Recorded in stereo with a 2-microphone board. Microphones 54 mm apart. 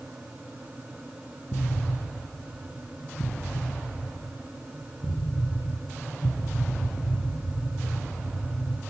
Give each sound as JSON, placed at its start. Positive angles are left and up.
{"t": 1.5, "sound": "an explosion", "side_deg": 35, "distance_m": 6.0}